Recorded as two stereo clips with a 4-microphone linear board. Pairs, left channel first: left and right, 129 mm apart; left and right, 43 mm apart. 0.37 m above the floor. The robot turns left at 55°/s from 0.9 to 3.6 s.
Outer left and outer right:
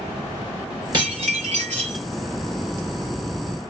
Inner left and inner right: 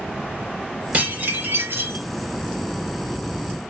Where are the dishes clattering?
35° right, 4 m; by 2.0 s 95° right, 4 m.